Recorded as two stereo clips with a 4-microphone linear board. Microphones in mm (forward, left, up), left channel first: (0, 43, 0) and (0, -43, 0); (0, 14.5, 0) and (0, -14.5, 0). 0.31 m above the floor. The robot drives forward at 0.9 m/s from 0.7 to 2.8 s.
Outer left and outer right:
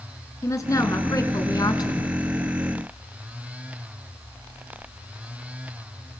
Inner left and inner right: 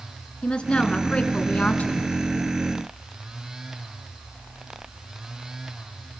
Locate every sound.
0.4 s a woman speaking: 40° left (ahead or behind), 3 m; by 2.1 s 55° left (ahead or behind), 2.5 m